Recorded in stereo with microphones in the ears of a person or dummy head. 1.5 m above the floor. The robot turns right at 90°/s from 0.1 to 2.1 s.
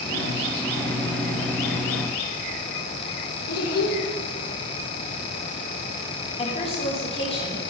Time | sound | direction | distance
3.5 | a child speaking | 55° left (ahead or behind) | 1.3 m
6.4 | a woman speaking | 30° left (ahead or behind) | 1.1 m